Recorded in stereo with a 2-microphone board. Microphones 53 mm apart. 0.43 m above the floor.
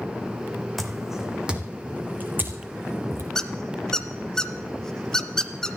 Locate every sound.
0.8 s footsteps: centre (ahead or behind), 1.4 m; by 3.2 s 45° right (ahead or behind), 2.5 m
3.4 s a squeak: 10° left (ahead or behind), 0.8 m